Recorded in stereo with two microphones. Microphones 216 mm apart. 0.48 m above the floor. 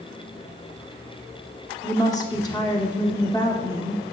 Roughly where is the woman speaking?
Centre.